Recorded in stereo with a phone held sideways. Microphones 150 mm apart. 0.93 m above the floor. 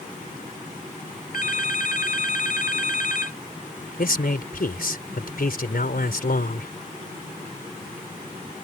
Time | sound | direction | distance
1.3 | a phone ringing | 65° left (ahead or behind) | ?
4.0 | a man speaking | 75° left (ahead or behind) | ?